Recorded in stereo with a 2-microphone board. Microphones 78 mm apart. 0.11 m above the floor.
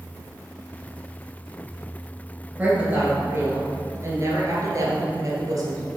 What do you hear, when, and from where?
2.6 s a woman speaking: 20° right (ahead or behind), 1.7 m; by 5.9 s 50° right (ahead or behind), 2 m